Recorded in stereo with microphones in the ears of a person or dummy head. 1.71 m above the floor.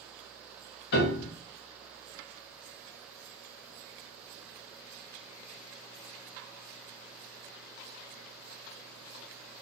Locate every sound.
0.9 s a piano: 65° left (ahead or behind), 0.9 m